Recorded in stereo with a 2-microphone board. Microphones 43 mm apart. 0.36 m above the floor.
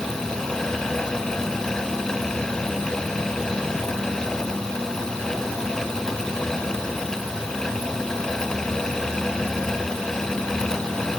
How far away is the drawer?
I don't hear a drawer.